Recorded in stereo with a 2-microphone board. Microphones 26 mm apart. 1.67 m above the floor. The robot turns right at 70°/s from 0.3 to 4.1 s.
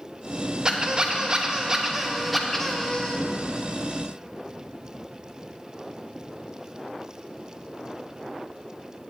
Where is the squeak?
115° right, 0.7 m; by 3.2 s 65° left, 0.7 m.